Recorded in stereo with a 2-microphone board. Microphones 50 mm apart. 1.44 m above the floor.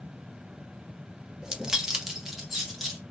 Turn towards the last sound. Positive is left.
turn(degrees=-5)  # may be behind; listen again after turning